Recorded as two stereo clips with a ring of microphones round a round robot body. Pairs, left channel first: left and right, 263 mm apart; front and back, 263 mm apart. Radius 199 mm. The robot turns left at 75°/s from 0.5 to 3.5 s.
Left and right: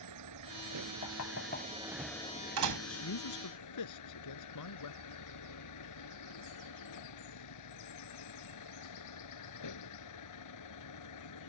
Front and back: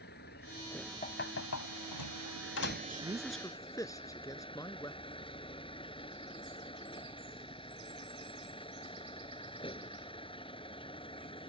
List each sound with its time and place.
0.0 s a vehicle: 65° right; by 11.5 s 70° left
1.0 s knocking: 60° left; by 2.8 s 75° right
2.9 s a man speaking: 125° left; by 5.0 s 80° left